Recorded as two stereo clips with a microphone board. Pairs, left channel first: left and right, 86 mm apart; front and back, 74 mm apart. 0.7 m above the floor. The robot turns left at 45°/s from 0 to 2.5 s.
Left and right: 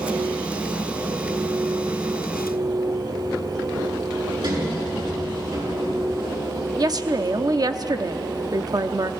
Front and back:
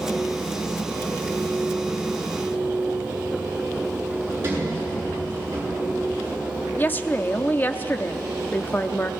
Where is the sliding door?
120° right, 8 m.